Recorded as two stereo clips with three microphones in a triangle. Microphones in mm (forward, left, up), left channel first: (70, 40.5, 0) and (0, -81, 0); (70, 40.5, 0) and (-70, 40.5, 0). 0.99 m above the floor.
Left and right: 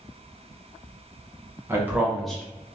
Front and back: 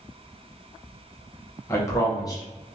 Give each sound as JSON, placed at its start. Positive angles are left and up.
{"t": 1.7, "sound": "a man speaking", "azimuth_deg": -55, "distance_m": 0.9}